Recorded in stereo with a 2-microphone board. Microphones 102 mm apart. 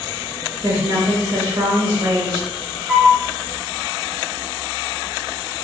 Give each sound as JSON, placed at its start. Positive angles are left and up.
{"t": 0.6, "sound": "a woman speaking", "side_deg": -35, "distance_m": 1.1}
{"t": 2.9, "sound": "a flute", "side_deg": -5, "distance_m": 0.9}